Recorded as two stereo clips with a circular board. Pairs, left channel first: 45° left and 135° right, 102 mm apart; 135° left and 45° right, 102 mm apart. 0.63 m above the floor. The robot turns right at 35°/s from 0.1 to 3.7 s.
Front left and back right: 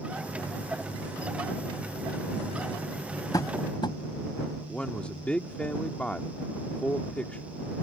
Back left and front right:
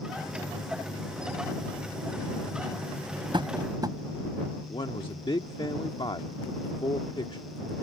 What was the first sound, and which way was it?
Tapping, 10° right.